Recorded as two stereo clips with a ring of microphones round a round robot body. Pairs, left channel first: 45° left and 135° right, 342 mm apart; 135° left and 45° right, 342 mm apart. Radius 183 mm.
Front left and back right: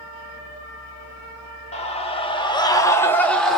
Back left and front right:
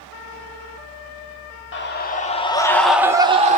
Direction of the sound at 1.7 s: 105° left.